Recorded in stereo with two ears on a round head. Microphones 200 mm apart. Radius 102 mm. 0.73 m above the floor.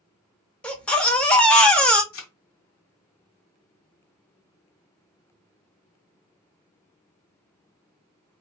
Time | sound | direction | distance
0.6 | a baby crying | 5° left (ahead or behind) | 0.8 m
2.1 | a thud | 65° left (ahead or behind) | 1.4 m